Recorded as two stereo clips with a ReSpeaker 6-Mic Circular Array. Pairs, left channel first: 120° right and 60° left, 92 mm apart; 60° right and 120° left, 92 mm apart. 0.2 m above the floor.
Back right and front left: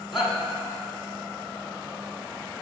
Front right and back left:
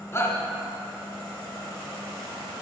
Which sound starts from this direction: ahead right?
A shout, at 0.1 s.